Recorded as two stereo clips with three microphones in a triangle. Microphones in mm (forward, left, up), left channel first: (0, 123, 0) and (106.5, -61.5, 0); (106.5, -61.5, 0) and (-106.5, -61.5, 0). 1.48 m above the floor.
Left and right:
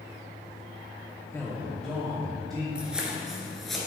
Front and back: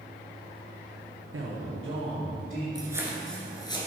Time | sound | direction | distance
1.3 | a man speaking | 165° right | 0.8 m
2.8 | footsteps | 140° right | 1.6 m